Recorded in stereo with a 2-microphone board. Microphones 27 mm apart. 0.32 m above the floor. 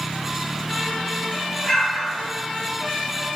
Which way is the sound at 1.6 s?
20° left (ahead or behind).